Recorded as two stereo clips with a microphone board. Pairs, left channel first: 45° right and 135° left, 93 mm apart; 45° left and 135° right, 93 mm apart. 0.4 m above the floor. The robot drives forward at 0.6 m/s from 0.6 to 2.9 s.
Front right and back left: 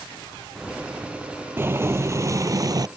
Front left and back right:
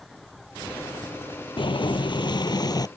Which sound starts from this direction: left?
Boiling, at 1.6 s.